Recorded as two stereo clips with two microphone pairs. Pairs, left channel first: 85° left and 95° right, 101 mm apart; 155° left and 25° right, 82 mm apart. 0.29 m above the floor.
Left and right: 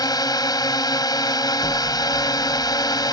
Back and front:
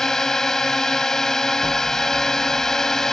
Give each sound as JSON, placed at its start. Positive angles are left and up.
{"t": 0.0, "sound": "a drone", "azimuth_deg": 75}
{"t": 1.6, "sound": "an explosion", "azimuth_deg": 40}